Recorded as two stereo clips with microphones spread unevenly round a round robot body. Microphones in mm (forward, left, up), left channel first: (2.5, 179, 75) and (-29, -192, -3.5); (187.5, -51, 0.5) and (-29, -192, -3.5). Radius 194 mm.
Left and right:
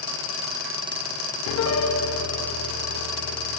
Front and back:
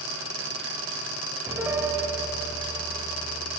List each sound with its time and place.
1.5 s a piano: 135° left, 1.3 m